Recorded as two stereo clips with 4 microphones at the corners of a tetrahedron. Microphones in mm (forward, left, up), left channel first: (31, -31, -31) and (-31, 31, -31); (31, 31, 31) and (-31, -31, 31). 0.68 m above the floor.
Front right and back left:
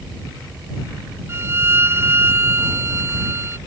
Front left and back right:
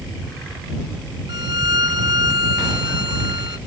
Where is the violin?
170° right.